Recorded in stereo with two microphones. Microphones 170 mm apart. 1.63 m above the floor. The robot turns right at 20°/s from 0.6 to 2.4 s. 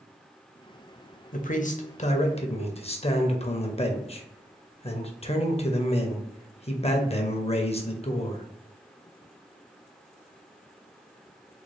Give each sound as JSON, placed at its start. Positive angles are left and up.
{"t": 1.3, "sound": "a man speaking", "side_deg": 55, "distance_m": 0.7}